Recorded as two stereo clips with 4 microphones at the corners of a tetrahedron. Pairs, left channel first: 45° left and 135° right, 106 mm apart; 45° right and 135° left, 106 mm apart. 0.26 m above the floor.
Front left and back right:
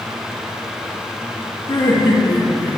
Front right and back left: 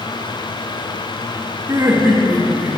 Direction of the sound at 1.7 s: 80° left.